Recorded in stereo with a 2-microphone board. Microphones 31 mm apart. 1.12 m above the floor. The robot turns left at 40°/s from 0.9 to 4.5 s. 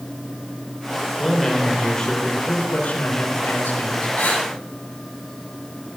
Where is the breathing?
80° left, 7 m; by 4.5 s 70° left (ahead or behind), 7 m.